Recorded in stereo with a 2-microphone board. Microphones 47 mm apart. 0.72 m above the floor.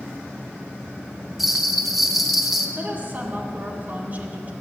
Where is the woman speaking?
40° right (ahead or behind), 1.7 m.